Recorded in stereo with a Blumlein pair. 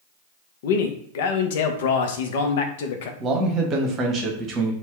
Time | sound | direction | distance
0.6 | a man speaking | 55° left | 0.6 m
3.2 | a man speaking | 25° right | 0.9 m